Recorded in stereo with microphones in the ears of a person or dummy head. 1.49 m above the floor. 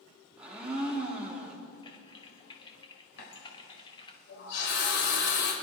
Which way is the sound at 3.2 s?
70° left (ahead or behind).